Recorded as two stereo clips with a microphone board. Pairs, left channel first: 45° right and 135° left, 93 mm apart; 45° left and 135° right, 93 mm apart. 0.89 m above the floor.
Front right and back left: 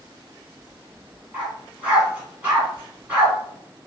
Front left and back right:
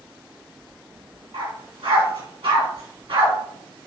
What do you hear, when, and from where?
1.3 s a dog barking: 150° right, 2.5 m